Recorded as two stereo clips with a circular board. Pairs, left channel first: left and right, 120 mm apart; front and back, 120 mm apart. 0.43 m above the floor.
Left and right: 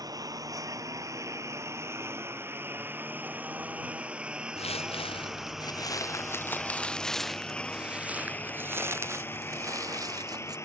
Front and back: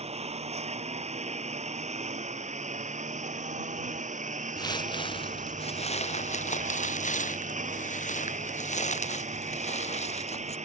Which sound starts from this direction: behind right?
A lawn mower, at 0.0 s.